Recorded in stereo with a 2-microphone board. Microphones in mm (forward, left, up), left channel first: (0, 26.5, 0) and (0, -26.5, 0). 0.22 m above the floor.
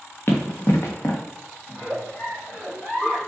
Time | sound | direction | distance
0.3 | running footsteps | 40° left (ahead or behind) | 1.2 m
1.7 | a giggle | 20° left (ahead or behind) | 1.4 m